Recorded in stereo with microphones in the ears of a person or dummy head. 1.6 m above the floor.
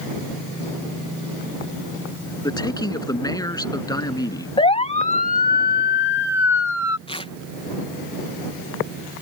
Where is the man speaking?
20° left (ahead or behind).